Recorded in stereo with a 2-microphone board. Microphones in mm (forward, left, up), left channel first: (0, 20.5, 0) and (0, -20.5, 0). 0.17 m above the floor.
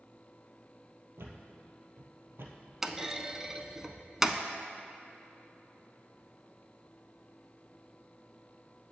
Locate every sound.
1.2 s a thud: 70° right (ahead or behind), 1.5 m
2.8 s a clunk: 10° right (ahead or behind), 0.6 m